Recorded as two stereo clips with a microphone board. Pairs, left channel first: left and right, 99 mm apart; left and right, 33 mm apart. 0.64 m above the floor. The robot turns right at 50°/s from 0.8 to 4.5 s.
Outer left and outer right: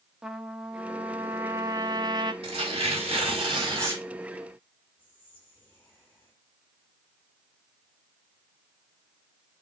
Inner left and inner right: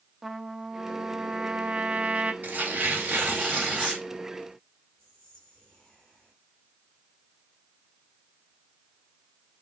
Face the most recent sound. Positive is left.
turn(degrees=15)  # may be behind; listen again after turning